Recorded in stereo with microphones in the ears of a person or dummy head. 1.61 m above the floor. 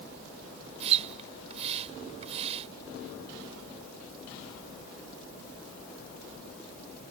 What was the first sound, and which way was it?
A splash, 40° right (ahead or behind).